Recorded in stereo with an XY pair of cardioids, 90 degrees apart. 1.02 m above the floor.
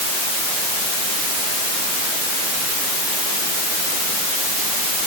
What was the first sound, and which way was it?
Only background noise.